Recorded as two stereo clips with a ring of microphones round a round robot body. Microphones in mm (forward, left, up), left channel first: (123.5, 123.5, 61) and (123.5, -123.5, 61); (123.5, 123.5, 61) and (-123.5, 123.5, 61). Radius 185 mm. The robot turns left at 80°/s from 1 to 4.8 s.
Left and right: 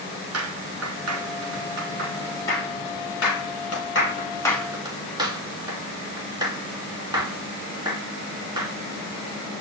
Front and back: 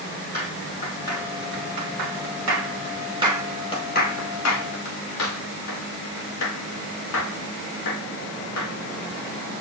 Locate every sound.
0.3 s a clap: 75° right, 6 m; by 8.7 s 15° right, 6 m